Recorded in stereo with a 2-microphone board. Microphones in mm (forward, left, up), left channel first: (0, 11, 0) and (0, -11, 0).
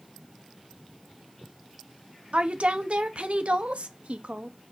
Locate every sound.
2.3 s a woman speaking: 85° right, 1.1 m